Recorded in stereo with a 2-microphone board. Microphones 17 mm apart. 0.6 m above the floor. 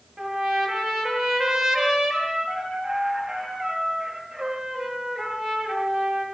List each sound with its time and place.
0.2 s a trumpet: 30° right (ahead or behind), 8 m